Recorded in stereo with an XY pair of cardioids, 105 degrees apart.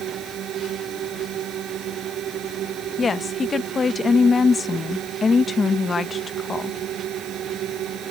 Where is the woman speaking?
35° left.